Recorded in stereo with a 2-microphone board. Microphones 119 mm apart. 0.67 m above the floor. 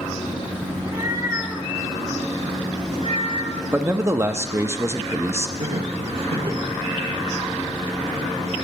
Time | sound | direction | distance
0.8 | a cat meowing | 35° right (ahead or behind) | 1.5 m
3.7 | a man speaking | 20° right (ahead or behind) | 0.5 m
5.6 | laughter | 50° right (ahead or behind) | 1.3 m